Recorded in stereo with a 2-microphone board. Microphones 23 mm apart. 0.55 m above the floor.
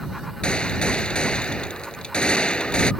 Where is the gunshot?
45° left (ahead or behind).